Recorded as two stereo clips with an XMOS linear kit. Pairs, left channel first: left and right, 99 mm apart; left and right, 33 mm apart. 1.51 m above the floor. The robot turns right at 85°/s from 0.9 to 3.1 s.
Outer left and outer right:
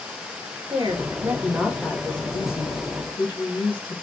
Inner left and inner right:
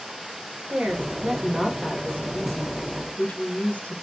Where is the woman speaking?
65° right, 1.2 m; by 4.0 s 125° left, 1.2 m.